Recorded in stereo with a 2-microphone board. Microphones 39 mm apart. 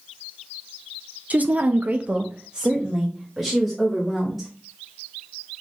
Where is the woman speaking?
40° right (ahead or behind), 0.6 m; by 4.5 s 5° right (ahead or behind), 2.0 m.